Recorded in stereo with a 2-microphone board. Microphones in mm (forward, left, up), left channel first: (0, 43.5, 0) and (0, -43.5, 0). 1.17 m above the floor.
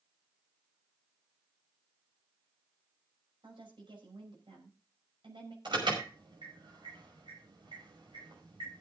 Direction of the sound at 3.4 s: 85° right.